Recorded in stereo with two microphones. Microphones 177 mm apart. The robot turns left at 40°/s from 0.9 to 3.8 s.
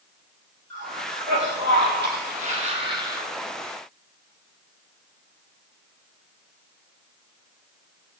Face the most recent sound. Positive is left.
turn(degrees=175)